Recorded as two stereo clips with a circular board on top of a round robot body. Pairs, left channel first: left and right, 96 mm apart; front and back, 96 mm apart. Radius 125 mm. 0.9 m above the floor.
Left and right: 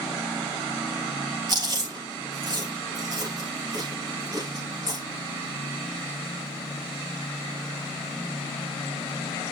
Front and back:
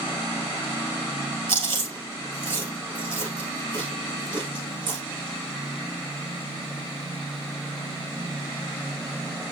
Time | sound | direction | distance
1.5 | chewing | 140° right | 3 m